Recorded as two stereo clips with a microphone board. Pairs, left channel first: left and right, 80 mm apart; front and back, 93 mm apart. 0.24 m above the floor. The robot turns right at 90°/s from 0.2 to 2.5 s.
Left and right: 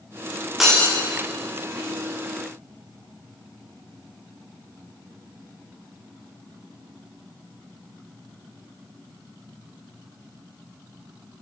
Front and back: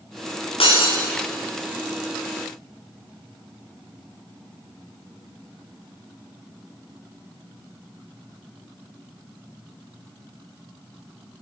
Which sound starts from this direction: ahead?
Breaking glass, at 0.6 s.